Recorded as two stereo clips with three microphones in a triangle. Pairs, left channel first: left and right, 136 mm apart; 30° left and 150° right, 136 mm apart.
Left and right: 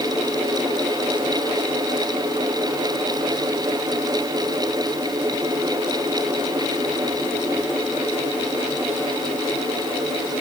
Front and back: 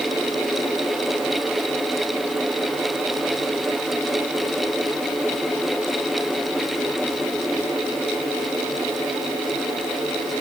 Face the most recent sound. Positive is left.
No sound to turn to.